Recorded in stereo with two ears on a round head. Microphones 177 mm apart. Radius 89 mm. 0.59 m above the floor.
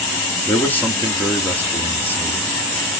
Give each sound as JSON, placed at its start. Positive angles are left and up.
{"t": 0.5, "sound": "a man speaking", "side_deg": 10, "distance_m": 1.0}